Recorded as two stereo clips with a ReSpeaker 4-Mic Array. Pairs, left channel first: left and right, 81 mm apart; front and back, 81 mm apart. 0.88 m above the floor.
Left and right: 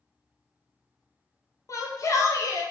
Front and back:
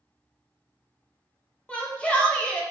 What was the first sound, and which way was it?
A shout, 70° left.